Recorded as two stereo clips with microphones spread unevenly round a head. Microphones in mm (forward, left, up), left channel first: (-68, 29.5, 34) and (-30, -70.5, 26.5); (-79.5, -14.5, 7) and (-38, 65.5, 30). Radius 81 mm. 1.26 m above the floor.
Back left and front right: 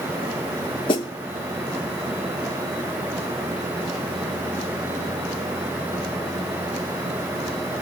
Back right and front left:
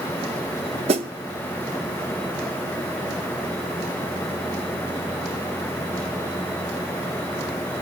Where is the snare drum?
55° left, 0.8 m.